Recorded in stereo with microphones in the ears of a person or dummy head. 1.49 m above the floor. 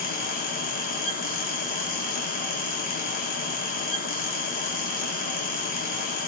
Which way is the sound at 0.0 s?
50° left (ahead or behind).